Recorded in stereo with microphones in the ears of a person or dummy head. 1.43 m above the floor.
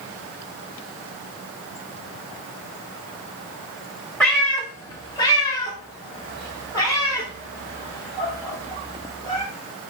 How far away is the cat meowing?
About 0.9 m.